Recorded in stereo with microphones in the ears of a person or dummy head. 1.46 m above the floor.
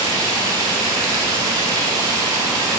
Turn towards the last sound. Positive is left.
turn(degrees=-20)  # may be behind; listen again after turning